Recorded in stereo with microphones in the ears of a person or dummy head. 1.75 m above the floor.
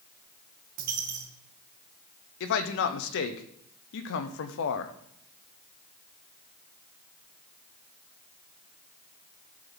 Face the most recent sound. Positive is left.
turn(degrees=70)  # may be behind; listen again after turning